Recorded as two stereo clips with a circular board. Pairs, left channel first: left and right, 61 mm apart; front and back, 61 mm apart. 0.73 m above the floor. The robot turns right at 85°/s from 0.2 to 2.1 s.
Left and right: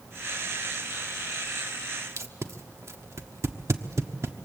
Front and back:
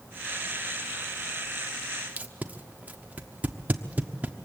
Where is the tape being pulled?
120° right, 1.1 m.